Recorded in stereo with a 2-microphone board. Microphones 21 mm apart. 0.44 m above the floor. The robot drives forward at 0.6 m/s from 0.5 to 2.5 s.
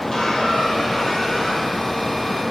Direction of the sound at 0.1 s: 25° left (ahead or behind).